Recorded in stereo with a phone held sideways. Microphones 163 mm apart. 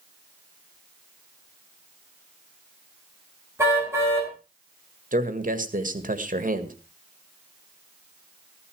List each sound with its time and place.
3.6 s a car horn: 15° right (ahead or behind), 7 m
5.1 s a man speaking: 55° right (ahead or behind), 1.7 m